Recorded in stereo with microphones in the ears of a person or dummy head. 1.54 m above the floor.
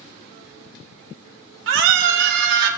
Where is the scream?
75° right (ahead or behind), 2 m; by 2.7 s 60° right (ahead or behind), 3 m.